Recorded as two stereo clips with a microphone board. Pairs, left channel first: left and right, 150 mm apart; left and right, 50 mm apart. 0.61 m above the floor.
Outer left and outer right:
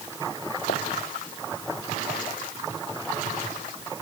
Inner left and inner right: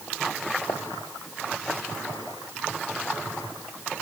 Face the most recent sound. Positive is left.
turn(degrees=85)